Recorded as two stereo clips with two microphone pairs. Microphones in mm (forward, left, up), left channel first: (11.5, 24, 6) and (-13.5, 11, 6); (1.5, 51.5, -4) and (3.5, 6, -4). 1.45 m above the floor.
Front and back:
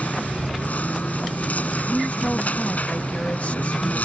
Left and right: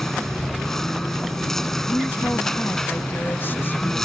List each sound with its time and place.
0.0 s a lawn mower: 10° left
1.9 s a woman speaking: 55° left